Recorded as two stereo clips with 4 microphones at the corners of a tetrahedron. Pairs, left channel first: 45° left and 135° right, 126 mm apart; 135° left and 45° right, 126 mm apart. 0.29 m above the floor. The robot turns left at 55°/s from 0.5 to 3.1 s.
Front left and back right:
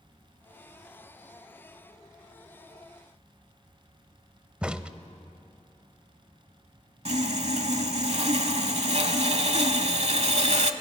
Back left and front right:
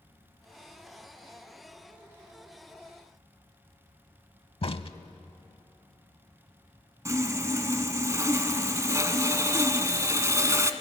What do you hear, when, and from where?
4.6 s a crack: 145° left, 0.7 m
7.0 s sawing: 110° right, 0.9 m